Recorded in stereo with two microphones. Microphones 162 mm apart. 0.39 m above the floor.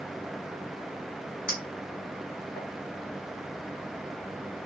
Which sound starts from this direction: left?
A clink, at 1.5 s.